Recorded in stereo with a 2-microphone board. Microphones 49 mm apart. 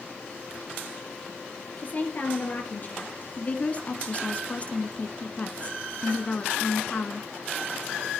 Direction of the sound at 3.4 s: 35° left (ahead or behind).